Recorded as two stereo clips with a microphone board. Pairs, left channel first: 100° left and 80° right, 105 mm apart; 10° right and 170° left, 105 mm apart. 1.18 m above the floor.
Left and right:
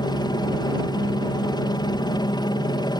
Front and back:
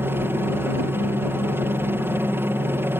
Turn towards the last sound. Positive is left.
turn(degrees=110)